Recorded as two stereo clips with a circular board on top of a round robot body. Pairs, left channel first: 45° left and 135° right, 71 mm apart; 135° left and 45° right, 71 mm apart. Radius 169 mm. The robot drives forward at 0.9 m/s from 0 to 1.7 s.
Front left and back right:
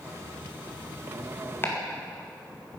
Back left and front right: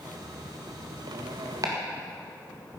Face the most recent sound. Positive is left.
turn(degrees=-10)